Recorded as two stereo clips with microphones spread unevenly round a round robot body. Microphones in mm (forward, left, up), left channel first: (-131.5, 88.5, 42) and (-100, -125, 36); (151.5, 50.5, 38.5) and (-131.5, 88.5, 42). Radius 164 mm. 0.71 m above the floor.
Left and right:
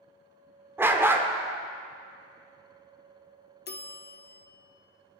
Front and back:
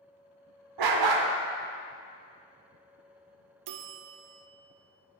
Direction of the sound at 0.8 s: 165° right.